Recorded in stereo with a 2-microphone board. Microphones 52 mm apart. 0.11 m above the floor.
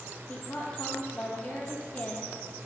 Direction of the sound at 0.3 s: 25° left (ahead or behind).